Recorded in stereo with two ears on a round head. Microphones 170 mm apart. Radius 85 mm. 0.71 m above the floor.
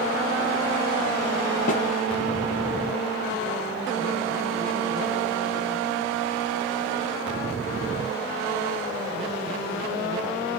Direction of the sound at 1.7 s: 40° left (ahead or behind).